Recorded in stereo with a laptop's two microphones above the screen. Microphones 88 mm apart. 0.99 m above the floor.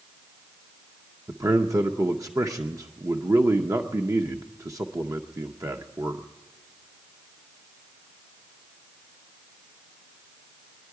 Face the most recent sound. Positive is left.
turn(degrees=-40)  # may be behind; listen again after turning